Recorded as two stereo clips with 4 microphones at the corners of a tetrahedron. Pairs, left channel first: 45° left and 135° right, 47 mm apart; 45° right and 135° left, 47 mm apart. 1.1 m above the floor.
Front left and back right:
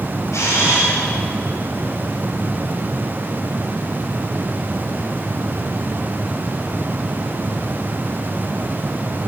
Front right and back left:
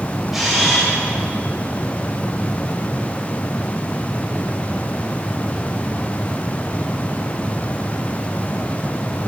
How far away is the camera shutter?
About 4.5 m.